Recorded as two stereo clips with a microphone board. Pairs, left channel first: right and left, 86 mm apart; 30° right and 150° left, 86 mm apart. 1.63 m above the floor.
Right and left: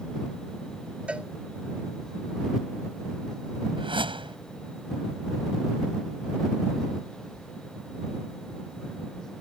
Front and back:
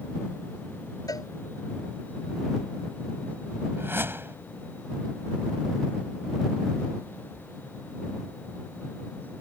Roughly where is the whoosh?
Left.